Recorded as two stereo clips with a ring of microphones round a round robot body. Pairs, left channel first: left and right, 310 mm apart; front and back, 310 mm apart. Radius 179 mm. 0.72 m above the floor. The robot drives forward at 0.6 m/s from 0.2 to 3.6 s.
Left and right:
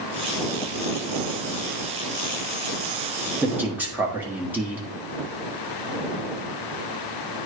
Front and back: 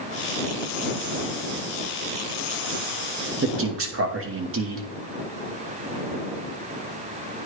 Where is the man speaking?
170° right, 1.2 m; by 4.9 s 175° right, 1.2 m.